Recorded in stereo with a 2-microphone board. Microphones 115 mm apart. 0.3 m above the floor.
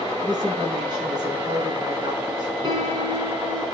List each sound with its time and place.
0.2 s a woman speaking: 40° right (ahead or behind), 3.5 m
2.6 s a piano: 40° right (ahead or behind), 3 m